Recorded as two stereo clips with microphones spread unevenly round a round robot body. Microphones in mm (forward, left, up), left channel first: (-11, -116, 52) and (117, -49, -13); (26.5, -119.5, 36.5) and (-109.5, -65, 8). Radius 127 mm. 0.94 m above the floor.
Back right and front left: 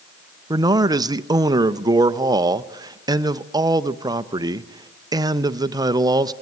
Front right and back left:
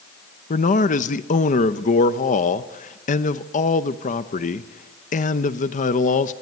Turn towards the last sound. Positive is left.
turn(degrees=15)